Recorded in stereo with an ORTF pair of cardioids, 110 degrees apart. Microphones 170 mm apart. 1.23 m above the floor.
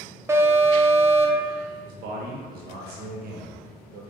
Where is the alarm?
15° right, 0.8 m.